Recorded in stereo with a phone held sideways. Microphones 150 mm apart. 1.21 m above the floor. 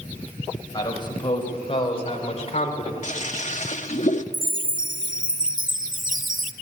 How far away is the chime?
About 0.8 m.